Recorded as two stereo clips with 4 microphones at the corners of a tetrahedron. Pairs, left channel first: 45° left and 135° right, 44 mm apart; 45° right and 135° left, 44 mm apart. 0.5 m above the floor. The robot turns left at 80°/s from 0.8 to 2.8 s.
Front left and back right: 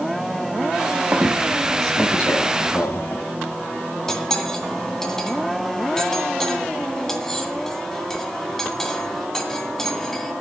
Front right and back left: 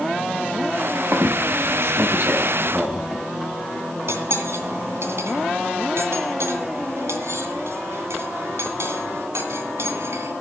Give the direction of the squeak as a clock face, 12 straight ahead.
6 o'clock.